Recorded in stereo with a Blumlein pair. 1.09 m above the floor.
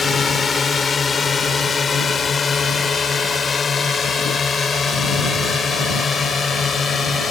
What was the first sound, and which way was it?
A drone, 20° left.